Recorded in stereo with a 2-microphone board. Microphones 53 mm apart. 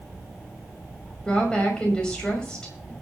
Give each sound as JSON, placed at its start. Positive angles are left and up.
{"t": 1.2, "sound": "a woman speaking", "side_deg": 15, "distance_m": 5.5}